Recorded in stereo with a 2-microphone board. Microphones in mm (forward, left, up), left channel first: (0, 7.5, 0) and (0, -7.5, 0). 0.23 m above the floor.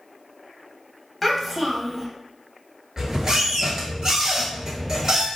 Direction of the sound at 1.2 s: Centre (ahead or behind).